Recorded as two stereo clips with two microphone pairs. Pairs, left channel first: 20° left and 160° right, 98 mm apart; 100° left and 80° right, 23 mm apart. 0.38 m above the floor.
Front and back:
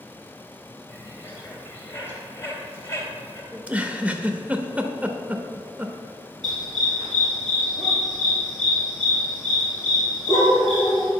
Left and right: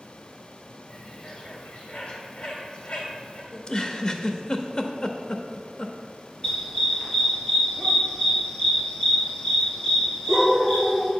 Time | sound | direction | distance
0.9 | a bird | 80° left | 2 m
3.5 | a giggle | 130° left | 0.6 m
6.4 | a dog barking | 155° left | 2.5 m